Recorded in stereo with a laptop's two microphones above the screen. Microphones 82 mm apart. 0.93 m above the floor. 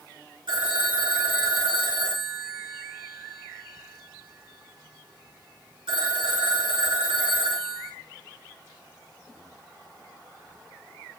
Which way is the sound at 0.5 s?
80° right.